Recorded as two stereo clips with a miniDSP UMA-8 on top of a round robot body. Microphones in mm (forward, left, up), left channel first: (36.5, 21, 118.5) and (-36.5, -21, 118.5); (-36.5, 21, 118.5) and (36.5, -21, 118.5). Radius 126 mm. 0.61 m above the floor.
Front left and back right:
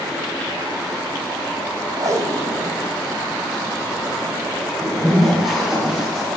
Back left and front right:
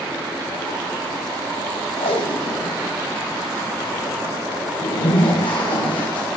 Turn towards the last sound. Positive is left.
turn(degrees=125)